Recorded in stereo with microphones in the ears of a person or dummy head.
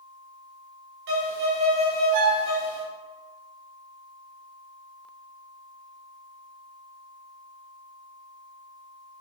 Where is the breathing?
No breathing in this recording.